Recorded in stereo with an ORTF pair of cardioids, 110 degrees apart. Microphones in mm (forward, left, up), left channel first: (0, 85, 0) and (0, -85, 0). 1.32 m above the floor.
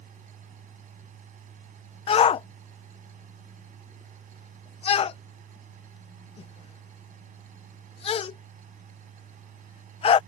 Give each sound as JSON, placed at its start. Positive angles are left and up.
{"t": 0.0, "sound": "a machine running", "azimuth_deg": -50}
{"t": 2.1, "sound": "a shout", "azimuth_deg": 35}